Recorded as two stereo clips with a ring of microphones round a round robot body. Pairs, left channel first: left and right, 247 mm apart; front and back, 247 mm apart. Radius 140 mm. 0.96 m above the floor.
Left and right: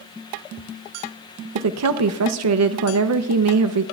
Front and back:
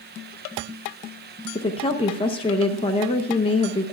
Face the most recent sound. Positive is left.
turn(degrees=-70)